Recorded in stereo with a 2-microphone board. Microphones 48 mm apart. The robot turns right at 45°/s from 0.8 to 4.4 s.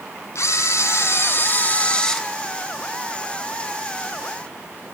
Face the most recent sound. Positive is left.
turn(degrees=-90)